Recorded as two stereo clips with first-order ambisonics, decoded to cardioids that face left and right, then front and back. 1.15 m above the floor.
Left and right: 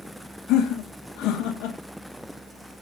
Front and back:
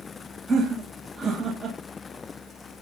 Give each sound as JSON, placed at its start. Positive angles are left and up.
{"t": 0.5, "sound": "laughter", "azimuth_deg": 115, "distance_m": 1.5}